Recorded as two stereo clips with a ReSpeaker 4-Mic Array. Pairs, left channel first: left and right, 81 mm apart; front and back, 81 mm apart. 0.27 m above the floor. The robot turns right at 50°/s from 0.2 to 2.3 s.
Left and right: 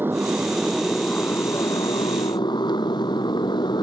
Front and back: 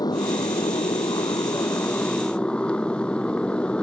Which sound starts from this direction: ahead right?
A motorcycle, at 0.0 s.